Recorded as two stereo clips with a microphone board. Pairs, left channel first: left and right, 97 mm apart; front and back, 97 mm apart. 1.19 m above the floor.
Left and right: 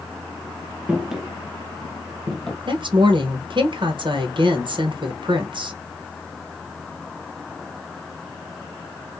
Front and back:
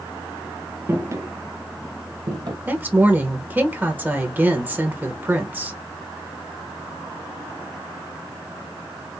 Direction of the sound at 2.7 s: 110° right.